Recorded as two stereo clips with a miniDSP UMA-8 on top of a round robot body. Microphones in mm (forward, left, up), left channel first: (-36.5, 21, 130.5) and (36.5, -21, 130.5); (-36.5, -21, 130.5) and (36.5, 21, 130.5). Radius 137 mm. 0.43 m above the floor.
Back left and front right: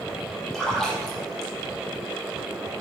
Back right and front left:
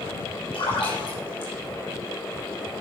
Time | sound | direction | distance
0.5 | a splash | 125° right | 4 m